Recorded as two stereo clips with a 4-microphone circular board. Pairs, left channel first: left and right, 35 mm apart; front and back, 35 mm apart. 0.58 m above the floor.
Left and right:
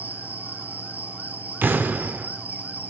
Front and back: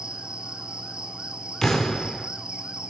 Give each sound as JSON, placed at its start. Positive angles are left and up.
{"t": 0.0, "sound": "an insect", "azimuth_deg": -120, "distance_m": 1.1}
{"t": 1.6, "sound": "an explosion", "azimuth_deg": -75, "distance_m": 0.8}